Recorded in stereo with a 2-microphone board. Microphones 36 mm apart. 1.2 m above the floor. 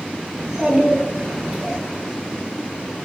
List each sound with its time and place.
0.4 s a child speaking: 15° right (ahead or behind), 0.8 m